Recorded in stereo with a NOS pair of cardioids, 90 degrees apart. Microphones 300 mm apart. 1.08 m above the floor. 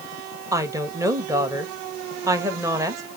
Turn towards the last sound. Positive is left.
turn(degrees=-10)